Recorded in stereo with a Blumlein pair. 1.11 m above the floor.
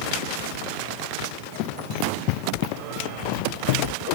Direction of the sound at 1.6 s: 40° left.